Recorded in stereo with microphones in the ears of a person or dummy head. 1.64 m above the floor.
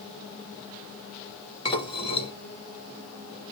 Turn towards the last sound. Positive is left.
turn(degrees=30)  # may be behind; listen again after turning